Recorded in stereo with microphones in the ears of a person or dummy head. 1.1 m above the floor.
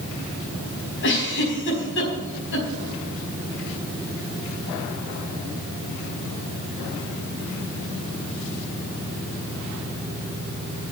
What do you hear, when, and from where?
1.0 s a giggle: 60° left (ahead or behind), 5 m